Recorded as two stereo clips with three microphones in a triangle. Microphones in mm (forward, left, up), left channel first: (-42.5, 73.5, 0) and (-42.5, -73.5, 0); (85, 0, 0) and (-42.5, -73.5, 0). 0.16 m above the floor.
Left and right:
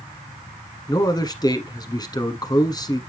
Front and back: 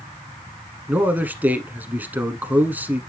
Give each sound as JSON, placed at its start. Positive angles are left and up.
{"t": 0.9, "sound": "a man speaking", "azimuth_deg": 140, "distance_m": 1.3}